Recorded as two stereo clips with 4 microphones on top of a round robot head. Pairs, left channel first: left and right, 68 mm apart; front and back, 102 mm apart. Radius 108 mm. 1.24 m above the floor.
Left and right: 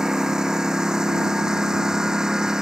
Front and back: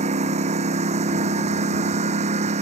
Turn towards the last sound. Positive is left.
turn(degrees=-170)